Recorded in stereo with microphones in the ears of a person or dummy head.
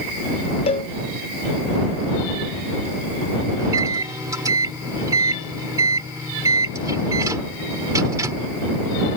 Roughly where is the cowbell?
Left.